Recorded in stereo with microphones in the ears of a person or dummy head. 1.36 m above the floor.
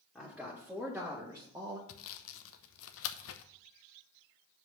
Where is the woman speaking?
Centre (ahead or behind), 2 m; by 1.8 s 20° right (ahead or behind), 1.4 m.